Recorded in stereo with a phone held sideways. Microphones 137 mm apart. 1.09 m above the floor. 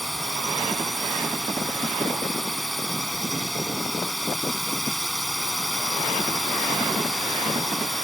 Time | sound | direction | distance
0.0 | a drone | centre (ahead or behind) | ?